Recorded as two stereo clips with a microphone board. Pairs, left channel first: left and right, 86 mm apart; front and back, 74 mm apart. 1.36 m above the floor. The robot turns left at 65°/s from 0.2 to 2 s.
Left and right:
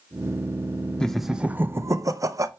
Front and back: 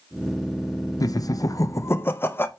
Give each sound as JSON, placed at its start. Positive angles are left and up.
{"t": 1.0, "sound": "laughter", "azimuth_deg": 15, "distance_m": 0.6}